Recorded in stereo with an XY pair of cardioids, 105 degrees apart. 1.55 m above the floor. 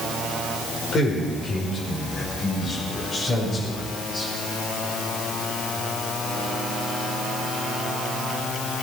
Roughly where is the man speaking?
Ahead left.